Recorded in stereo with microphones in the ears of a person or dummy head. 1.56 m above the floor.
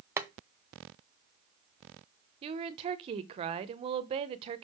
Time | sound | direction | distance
0.2 | boiling | 15° right (ahead or behind) | 0.9 m
2.4 | a woman speaking | 30° right (ahead or behind) | 0.8 m